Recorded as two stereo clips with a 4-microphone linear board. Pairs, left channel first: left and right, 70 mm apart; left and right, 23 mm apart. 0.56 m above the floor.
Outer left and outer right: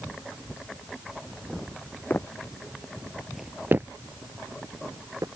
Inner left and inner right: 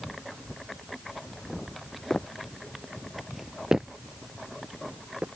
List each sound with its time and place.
2.1 s footsteps: 30° left (ahead or behind); by 5.3 s 45° right (ahead or behind)